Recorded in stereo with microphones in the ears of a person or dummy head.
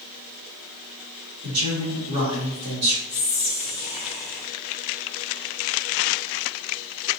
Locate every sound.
1.4 s a man speaking: 85° right, 1.9 m
3.1 s whispering: 10° right (ahead or behind), 0.8 m